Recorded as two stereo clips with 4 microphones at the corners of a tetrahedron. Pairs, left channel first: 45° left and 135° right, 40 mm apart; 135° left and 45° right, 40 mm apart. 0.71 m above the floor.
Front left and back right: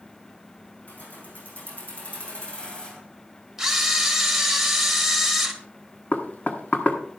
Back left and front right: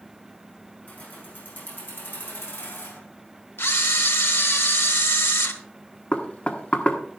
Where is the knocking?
85° left, 1.4 m.